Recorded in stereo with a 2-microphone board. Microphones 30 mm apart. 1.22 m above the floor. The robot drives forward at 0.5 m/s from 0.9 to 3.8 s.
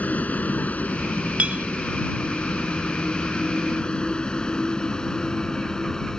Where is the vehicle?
55° left (ahead or behind); by 6.2 s 20° left (ahead or behind).